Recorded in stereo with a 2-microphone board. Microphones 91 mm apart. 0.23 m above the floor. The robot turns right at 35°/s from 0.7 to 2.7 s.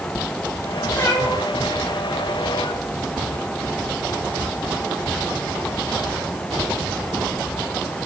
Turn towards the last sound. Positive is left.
turn(degrees=80)